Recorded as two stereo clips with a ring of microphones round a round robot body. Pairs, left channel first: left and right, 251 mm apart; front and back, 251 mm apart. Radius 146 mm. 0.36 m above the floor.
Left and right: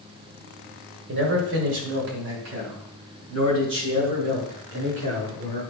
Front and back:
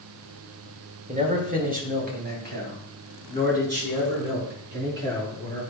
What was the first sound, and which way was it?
A man speaking, 125° right.